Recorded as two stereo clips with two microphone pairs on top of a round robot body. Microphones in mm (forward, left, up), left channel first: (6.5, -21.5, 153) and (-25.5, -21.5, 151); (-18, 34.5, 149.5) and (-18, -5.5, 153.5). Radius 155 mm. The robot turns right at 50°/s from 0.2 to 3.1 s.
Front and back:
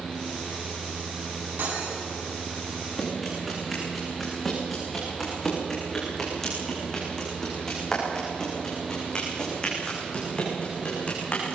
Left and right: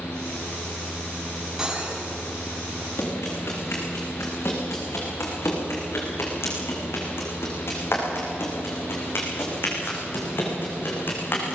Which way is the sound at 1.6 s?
165° right.